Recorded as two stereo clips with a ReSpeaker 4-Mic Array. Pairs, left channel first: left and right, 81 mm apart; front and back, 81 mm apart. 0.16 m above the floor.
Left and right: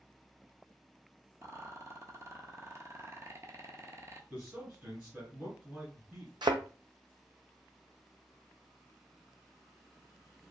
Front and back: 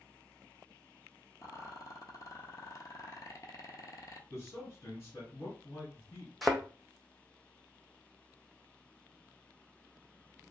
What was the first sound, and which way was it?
A rattle, 40° right.